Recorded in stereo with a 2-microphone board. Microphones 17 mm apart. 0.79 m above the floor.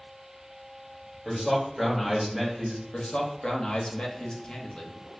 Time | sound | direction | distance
1.2 | a man speaking | centre (ahead or behind) | 2.0 m
2.9 | a man speaking | 65° left (ahead or behind) | 0.9 m